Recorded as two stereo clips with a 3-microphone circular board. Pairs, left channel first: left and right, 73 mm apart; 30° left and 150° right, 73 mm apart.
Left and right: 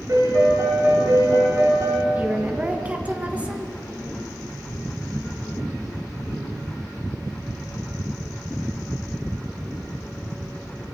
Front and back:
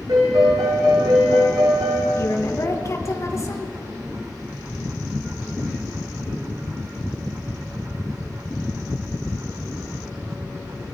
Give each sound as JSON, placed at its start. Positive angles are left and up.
{"t": 0.1, "sound": "a piano", "azimuth_deg": -130, "distance_m": 8.0}
{"t": 2.1, "sound": "a woman speaking", "azimuth_deg": -20, "distance_m": 2.5}